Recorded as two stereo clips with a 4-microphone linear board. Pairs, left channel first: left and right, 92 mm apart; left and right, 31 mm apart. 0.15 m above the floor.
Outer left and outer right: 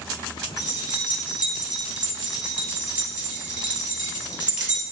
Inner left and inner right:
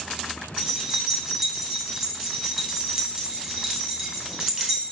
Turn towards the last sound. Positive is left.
turn(degrees=-10)  # may be behind; listen again after turning